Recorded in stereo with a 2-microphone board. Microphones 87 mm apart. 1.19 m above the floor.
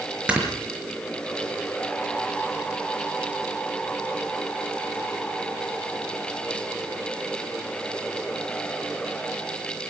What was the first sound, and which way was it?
Snoring, 15° right (ahead or behind).